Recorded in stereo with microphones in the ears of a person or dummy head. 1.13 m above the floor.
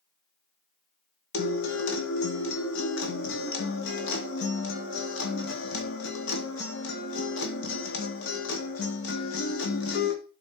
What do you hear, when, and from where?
1.3 s a guitar: 65° left (ahead or behind), 2 m